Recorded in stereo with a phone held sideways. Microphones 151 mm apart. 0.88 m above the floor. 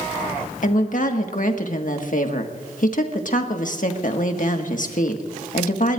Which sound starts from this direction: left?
A woman speaking, at 0.6 s.